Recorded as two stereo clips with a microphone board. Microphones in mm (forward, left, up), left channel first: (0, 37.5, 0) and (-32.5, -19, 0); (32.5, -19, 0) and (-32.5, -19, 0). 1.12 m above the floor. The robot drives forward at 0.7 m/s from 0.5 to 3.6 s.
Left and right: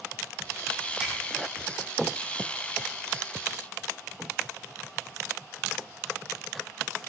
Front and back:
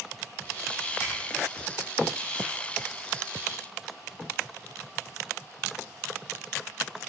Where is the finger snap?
35° right, 6.5 m.